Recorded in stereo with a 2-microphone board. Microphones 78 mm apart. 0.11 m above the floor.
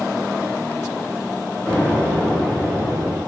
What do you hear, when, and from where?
1.7 s an explosion: 20° left (ahead or behind), 1.4 m